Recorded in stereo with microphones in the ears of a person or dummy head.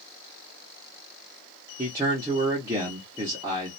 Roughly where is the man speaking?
Centre.